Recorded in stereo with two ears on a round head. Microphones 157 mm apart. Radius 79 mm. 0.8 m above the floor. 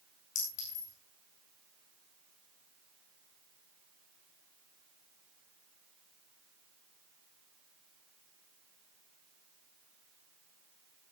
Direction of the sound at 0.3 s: 45° left (ahead or behind).